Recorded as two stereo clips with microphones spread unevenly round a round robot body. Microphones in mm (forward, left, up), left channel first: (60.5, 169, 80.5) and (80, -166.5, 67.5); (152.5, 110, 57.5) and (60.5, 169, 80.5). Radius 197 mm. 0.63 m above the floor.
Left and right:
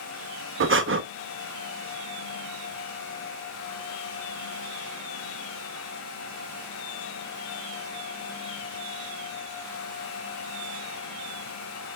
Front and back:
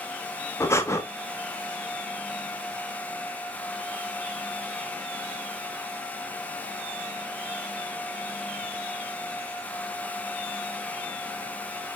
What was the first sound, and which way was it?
Breathing, 60° right.